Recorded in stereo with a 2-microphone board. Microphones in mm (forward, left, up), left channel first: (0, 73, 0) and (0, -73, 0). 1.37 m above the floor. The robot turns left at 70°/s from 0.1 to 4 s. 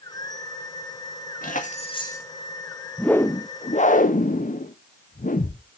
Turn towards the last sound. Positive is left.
turn(degrees=105)